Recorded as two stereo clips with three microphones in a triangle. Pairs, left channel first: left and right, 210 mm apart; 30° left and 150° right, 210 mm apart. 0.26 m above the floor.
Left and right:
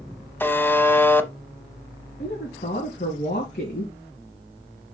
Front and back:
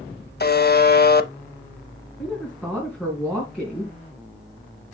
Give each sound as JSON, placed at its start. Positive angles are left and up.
{"t": 0.4, "sound": "a buzzer", "azimuth_deg": 15, "distance_m": 0.7}
{"t": 2.2, "sound": "a woman speaking", "azimuth_deg": 125, "distance_m": 2.5}